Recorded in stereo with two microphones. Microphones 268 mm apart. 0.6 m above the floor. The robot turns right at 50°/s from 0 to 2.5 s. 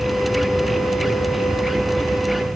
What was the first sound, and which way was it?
Only background noise.